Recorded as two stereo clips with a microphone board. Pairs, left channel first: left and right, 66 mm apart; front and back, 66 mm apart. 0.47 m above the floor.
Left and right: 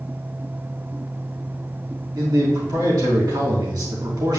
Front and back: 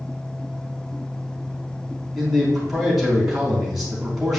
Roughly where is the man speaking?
Right.